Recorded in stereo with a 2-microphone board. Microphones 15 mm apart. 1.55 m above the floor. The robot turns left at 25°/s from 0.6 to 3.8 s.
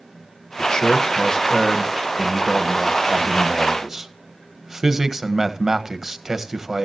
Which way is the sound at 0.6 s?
50° left.